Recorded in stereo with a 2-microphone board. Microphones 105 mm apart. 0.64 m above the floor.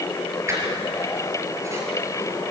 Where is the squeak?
25° right (ahead or behind), 5 m.